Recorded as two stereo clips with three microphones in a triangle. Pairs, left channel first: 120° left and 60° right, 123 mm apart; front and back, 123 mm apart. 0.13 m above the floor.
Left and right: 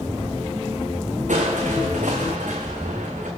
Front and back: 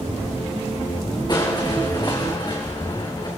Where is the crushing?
55° right, 3 m.